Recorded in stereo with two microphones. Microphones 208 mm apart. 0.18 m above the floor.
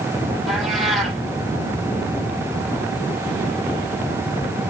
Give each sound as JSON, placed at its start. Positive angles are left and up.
{"t": 0.5, "sound": "a cat meowing", "side_deg": 0, "distance_m": 3.0}